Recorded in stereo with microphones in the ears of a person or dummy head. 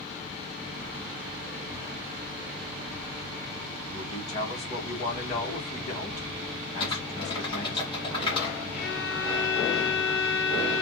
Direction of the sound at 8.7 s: 60° left (ahead or behind).